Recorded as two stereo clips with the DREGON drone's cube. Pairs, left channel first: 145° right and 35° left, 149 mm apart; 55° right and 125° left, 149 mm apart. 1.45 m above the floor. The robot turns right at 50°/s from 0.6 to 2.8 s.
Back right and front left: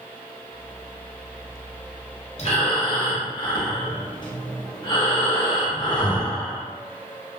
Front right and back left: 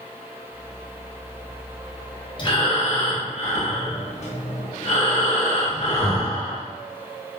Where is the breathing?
110° right, 0.6 m; by 6.6 s 90° right, 0.6 m.